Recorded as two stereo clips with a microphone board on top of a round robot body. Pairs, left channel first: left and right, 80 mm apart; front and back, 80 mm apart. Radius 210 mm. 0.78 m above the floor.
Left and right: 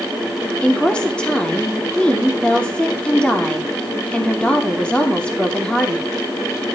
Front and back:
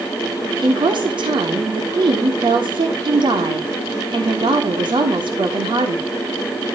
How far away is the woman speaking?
About 3 m.